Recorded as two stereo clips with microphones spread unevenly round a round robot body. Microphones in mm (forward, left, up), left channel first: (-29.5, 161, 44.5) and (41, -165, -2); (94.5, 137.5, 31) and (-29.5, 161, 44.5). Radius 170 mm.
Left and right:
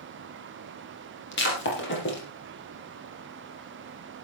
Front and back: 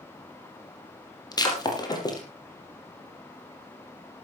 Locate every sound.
1.3 s breaking glass: 45° left, 5 m